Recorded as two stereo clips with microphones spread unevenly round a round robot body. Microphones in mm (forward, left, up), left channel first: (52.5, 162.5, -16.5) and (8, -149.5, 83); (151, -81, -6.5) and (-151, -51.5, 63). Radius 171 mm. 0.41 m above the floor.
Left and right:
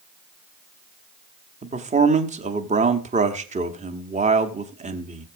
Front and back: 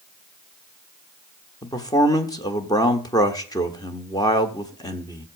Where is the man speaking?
15° right, 1.4 m.